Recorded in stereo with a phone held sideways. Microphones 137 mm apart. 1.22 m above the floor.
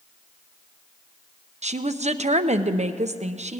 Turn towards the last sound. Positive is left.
turn(degrees=-60)  # may be behind; listen again after turning